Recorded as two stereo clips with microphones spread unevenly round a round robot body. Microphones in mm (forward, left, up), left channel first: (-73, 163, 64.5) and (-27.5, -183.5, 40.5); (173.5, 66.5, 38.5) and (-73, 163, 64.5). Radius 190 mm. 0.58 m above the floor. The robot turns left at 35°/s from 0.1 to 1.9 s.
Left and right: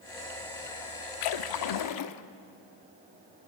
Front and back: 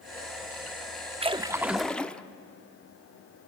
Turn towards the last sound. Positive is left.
turn(degrees=65)